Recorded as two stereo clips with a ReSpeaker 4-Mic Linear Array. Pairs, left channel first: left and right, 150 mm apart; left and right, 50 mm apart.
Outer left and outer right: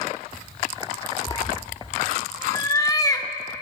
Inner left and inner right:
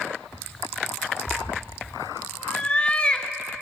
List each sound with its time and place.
1.3 s a cat meowing: 25° left (ahead or behind), 0.7 m